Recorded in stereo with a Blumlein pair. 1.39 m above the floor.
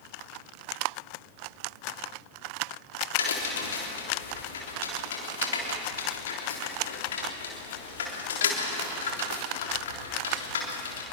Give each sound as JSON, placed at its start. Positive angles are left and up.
{"t": 3.2, "sound": "a crack", "azimuth_deg": 60, "distance_m": 3.5}